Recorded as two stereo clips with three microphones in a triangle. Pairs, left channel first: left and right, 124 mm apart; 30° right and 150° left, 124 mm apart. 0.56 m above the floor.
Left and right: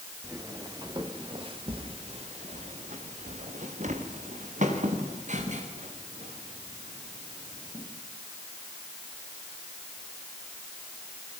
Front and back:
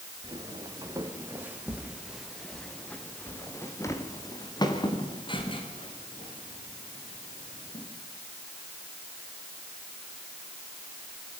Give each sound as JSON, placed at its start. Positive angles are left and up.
{"t": 0.2, "sound": "footsteps", "azimuth_deg": -155, "distance_m": 5.0}